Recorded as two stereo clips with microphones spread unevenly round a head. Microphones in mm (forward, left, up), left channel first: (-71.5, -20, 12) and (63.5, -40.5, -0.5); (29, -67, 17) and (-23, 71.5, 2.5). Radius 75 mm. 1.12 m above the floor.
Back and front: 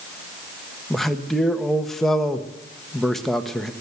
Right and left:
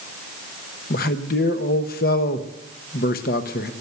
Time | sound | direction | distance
0.9 | a man speaking | 100° right | 1.2 m